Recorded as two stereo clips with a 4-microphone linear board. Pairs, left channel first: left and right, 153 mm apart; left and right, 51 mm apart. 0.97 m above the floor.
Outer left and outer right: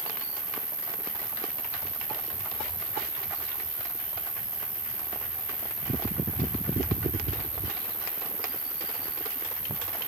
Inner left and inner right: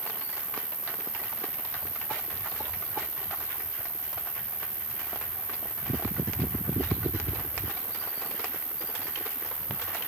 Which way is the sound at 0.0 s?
60° left (ahead or behind).